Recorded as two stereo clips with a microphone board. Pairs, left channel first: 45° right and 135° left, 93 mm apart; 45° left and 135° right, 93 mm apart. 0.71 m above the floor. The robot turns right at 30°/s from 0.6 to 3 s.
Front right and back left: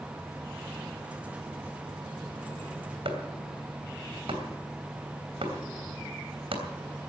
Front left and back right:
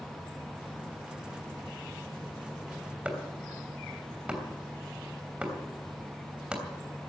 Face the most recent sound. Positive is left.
turn(degrees=145)